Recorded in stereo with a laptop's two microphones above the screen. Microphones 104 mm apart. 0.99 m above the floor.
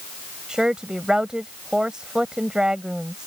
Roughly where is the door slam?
No door slam in this recording.